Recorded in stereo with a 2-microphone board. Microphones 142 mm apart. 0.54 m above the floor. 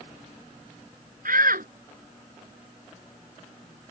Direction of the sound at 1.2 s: 80° right.